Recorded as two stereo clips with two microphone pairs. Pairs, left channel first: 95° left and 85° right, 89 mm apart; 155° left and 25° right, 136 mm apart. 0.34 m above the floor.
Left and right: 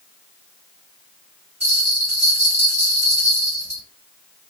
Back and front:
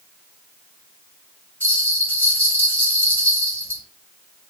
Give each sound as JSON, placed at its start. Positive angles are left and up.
{"t": 1.6, "sound": "a bell", "azimuth_deg": -135, "distance_m": 1.6}